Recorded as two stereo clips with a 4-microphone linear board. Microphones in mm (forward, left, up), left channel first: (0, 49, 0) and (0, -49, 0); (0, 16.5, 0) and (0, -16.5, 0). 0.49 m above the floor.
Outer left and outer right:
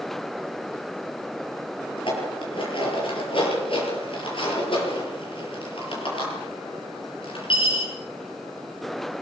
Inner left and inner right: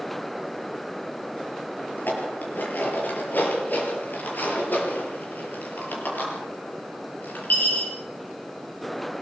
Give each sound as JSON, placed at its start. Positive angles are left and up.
{"t": 2.0, "sound": "dishes clattering", "side_deg": 65, "distance_m": 6.5}